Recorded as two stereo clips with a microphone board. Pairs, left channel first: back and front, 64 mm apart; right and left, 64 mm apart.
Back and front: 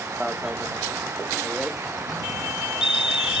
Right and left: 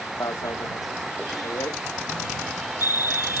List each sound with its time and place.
0.2 s an alarm: 80° right